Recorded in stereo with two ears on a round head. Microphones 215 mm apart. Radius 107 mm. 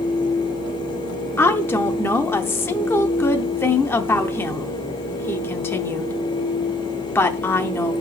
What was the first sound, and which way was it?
A woman speaking, 10° left (ahead or behind).